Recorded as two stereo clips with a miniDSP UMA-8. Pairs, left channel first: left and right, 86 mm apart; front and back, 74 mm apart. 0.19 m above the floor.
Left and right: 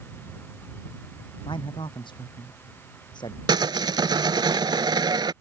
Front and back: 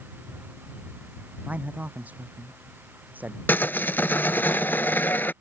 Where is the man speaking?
110° left; by 3.4 s 115° left.